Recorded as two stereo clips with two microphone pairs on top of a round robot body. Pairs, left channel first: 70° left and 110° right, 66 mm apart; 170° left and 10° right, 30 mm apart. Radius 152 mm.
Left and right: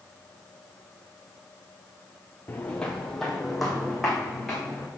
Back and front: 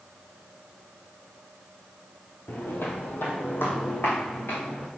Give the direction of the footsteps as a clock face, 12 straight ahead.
7 o'clock.